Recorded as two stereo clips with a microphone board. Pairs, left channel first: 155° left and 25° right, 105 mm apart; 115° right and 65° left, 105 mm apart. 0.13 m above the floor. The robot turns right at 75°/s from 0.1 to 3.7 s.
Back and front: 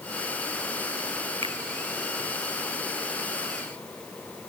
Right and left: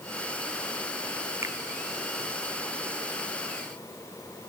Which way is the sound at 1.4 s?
5° left.